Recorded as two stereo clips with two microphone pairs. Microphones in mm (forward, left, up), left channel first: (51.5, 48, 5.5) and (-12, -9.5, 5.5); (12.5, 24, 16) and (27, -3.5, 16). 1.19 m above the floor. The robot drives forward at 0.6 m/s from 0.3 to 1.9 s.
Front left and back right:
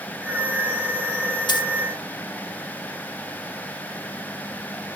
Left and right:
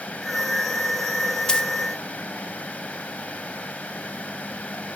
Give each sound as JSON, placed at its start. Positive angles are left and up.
{"t": 1.5, "sound": "a dropped coin", "azimuth_deg": 60, "distance_m": 1.1}